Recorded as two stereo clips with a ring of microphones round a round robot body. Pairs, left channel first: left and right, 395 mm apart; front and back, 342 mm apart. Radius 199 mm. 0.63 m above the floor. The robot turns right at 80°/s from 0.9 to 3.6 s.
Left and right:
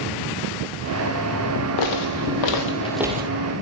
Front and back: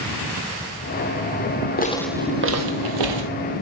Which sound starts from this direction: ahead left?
Footsteps, at 1.8 s.